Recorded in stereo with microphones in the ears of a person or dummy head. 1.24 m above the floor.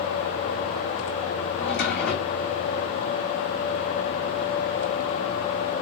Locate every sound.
1.6 s a drawer: 50° left (ahead or behind), 4 m